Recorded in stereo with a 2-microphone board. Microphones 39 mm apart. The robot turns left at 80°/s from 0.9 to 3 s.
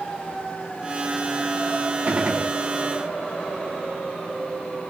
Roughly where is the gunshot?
Behind right.